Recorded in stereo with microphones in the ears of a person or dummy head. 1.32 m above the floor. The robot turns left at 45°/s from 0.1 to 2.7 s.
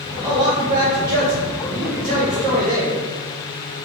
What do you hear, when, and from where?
0.2 s a man speaking: 25° right, 1.0 m; by 3.0 s 140° right, 1.0 m